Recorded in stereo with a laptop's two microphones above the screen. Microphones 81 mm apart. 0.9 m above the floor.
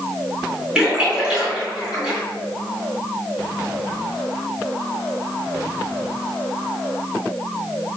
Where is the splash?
10° right (ahead or behind), 1.9 m.